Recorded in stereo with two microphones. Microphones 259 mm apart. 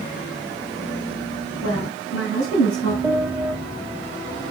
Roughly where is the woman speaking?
Left.